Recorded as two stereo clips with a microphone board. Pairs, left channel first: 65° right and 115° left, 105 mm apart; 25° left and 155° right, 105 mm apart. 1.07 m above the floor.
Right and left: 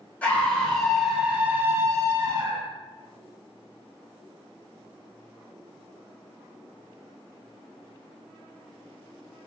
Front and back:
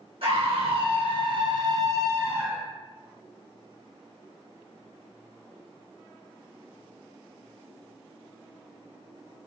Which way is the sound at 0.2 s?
145° right.